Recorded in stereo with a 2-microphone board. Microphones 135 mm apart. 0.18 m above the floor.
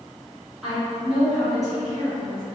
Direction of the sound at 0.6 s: 5° right (ahead or behind).